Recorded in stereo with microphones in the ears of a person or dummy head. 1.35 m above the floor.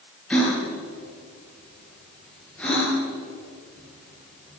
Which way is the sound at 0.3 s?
10° left (ahead or behind).